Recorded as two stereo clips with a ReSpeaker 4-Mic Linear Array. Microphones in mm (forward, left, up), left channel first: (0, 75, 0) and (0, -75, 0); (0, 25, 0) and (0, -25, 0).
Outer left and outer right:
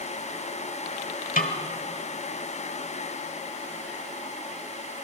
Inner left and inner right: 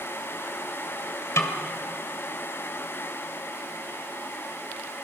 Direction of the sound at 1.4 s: 65° left (ahead or behind).